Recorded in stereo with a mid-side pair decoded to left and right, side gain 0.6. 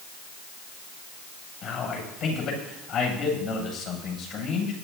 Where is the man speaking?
65° left, 7.5 m.